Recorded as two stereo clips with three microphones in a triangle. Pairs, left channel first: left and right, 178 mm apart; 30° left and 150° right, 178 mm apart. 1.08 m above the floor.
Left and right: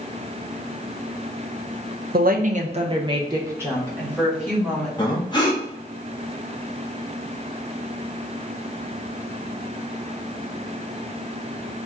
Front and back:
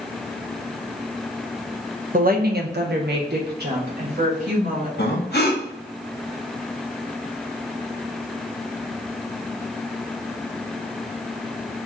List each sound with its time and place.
2.1 s a woman speaking: 115° right, 0.6 m; by 4.9 s straight behind, 1.7 m
5.0 s breathing: 30° left, 0.9 m